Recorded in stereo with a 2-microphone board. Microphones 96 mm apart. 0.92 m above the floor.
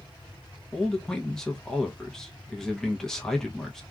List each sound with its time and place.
0.7 s a man speaking: 5° left (ahead or behind), 0.8 m